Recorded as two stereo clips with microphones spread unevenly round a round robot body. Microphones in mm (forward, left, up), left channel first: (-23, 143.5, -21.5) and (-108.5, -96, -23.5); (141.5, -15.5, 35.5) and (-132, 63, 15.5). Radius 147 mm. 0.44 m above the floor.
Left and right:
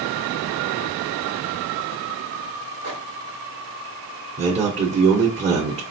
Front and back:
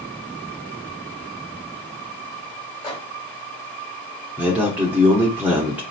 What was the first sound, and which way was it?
A microwave, 60° left.